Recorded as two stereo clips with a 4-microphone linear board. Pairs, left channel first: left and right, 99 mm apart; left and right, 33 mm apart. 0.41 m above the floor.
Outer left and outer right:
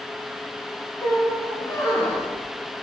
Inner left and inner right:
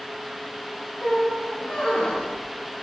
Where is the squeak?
40° left (ahead or behind), 2.5 m.